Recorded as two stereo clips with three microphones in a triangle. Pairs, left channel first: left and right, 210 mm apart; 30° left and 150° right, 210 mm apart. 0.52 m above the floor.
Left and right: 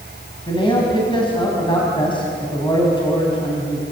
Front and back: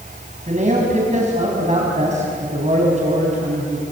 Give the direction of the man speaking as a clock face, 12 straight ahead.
7 o'clock.